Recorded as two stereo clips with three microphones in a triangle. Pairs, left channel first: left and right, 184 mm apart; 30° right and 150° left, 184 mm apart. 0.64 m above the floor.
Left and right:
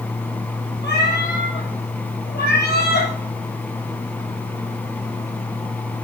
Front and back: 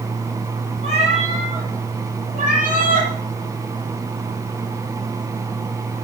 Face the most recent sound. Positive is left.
turn(degrees=115)